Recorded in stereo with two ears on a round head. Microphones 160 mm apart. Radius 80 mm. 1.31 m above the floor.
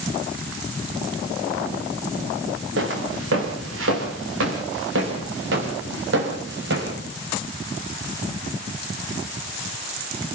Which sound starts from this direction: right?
Footsteps, at 2.8 s.